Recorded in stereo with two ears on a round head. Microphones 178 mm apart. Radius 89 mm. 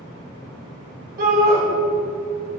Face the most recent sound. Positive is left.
turn(degrees=-45)  # may be behind; listen again after turning